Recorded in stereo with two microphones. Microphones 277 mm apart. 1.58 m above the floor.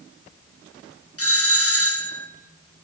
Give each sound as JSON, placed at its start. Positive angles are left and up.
{"t": 1.2, "sound": "a doorbell", "side_deg": 55, "distance_m": 1.5}